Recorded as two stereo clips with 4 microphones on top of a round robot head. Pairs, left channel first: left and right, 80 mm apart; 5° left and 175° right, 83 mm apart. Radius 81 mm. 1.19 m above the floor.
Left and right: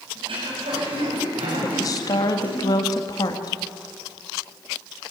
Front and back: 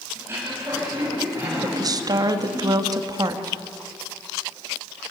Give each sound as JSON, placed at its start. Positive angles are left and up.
{"t": 0.1, "sound": "throat clearing", "azimuth_deg": -110, "distance_m": 7.0}
{"t": 1.6, "sound": "a woman speaking", "azimuth_deg": 140, "distance_m": 1.9}